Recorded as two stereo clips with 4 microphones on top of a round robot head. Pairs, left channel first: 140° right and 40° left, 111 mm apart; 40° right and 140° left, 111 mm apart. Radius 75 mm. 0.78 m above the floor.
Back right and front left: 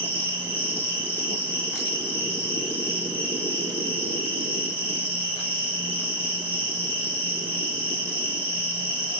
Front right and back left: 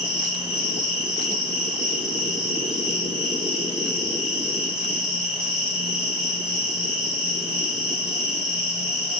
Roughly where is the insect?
Behind right.